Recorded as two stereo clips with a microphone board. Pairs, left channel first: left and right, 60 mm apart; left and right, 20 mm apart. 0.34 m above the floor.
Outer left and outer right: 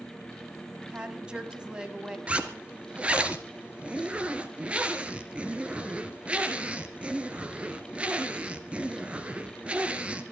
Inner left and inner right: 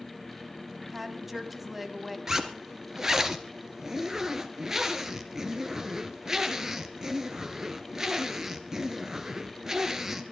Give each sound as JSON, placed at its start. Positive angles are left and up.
{"t": 0.9, "sound": "a woman speaking", "side_deg": -15, "distance_m": 2.5}
{"t": 2.3, "sound": "a zipper", "side_deg": -20, "distance_m": 1.8}